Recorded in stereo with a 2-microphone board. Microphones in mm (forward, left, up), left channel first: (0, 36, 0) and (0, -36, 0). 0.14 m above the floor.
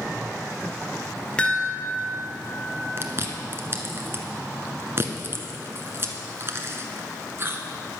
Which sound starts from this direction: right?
Chewing, at 3.0 s.